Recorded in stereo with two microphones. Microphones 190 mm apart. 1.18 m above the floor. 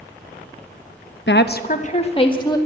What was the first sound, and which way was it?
A woman speaking, 75° left (ahead or behind).